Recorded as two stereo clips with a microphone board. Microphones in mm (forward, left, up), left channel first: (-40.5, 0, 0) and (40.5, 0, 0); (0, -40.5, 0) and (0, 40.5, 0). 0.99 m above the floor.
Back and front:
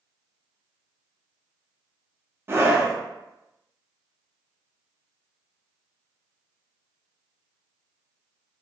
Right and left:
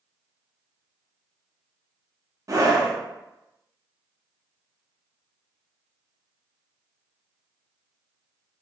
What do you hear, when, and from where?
2.5 s a scream: 55° left, 0.8 m